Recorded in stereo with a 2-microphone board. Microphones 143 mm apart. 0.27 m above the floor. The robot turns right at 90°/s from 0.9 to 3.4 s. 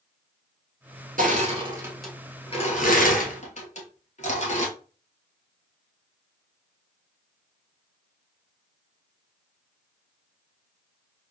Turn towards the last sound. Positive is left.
turn(degrees=55)  # may be behind; listen again after turning